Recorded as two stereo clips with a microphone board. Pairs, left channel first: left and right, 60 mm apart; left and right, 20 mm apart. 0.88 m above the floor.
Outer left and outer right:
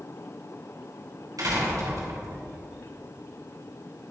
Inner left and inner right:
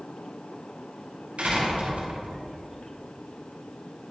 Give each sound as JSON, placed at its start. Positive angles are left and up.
{"t": 1.4, "sound": "a door slam", "side_deg": -85, "distance_m": 4.5}